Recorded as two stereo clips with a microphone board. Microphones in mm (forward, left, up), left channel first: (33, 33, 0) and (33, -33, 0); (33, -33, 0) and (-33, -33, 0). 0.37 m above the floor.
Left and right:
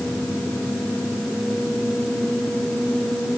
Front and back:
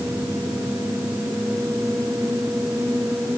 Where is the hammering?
I don't hear hammering.